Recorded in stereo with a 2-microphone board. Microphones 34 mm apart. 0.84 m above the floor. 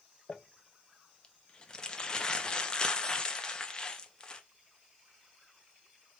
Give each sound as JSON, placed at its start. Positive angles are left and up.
{"t": 0.3, "sound": "crumpling", "side_deg": 25, "distance_m": 0.7}